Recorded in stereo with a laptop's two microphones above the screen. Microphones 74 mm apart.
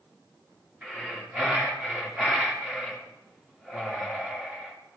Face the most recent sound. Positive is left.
turn(degrees=-10)  # may be behind; listen again after turning